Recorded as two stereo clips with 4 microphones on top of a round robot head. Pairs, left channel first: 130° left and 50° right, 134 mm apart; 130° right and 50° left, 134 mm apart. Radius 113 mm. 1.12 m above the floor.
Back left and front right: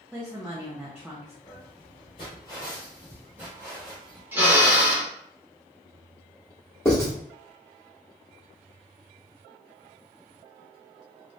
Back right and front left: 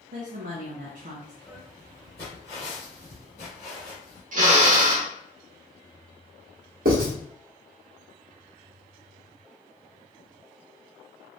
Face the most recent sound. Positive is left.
turn(degrees=60)